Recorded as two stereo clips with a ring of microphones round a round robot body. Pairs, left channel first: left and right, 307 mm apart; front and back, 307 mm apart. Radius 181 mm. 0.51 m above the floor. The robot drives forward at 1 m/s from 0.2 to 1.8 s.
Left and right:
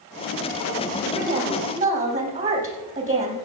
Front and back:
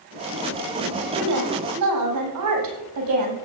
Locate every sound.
1.1 s a woman speaking: 155° right, 4 m; by 3.4 s 160° right, 4.5 m